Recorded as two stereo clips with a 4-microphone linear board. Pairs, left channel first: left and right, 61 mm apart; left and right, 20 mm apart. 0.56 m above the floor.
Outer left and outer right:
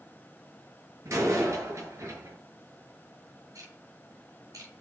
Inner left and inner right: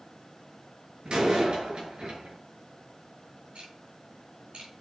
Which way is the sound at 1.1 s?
55° right (ahead or behind).